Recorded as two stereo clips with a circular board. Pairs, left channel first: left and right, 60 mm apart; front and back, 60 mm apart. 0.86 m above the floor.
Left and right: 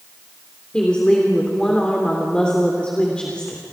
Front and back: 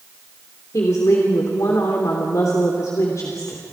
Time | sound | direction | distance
0.7 | a woman speaking | 20° left | 3 m